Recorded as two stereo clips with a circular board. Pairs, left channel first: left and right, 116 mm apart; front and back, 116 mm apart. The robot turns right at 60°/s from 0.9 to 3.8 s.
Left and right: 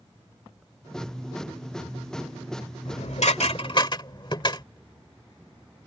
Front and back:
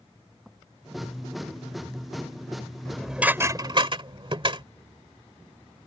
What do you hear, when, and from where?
2.9 s dishes clattering: 80° left; by 4.6 s 140° left